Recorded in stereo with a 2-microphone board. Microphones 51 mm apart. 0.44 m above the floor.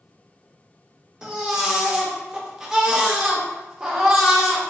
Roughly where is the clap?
No clap in this recording.